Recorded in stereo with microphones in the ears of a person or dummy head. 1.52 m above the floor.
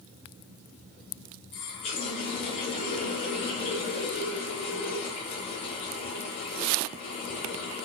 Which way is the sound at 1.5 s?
40° left (ahead or behind).